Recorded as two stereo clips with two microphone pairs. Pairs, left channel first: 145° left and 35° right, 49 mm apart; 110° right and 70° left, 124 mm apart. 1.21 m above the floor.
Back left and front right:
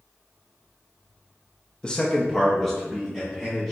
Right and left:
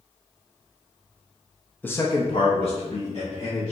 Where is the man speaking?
165° right, 0.5 m; by 3.7 s 125° right, 1.9 m.